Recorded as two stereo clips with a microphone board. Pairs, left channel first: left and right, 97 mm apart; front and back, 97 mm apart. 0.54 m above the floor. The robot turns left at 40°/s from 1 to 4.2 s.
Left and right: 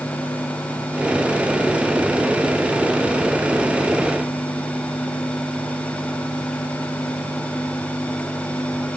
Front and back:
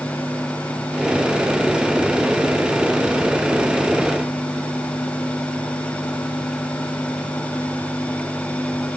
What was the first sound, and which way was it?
Only background noise.